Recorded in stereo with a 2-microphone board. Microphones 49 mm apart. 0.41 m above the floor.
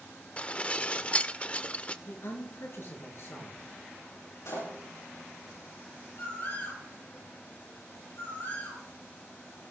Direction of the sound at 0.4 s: 25° left (ahead or behind).